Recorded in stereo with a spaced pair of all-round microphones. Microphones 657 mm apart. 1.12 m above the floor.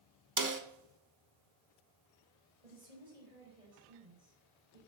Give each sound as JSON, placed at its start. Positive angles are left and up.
{"t": 0.4, "sound": "a snare drum", "side_deg": -30, "distance_m": 1.0}
{"t": 2.6, "sound": "a woman speaking", "side_deg": -85, "distance_m": 4.5}